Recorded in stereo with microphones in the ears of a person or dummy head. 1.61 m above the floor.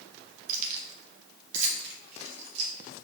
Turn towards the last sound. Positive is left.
turn(degrees=-35)  # may be behind; listen again after turning